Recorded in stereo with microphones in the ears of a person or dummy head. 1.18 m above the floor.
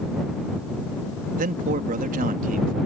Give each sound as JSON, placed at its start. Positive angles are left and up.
{"t": 1.4, "sound": "a man speaking", "side_deg": -55}